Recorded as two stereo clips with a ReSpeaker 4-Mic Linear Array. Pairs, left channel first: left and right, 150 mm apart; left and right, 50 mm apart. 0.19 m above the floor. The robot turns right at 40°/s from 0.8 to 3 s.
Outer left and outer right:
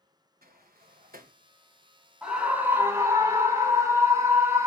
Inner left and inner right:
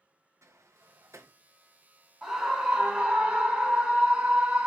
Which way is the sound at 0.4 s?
75° right (ahead or behind).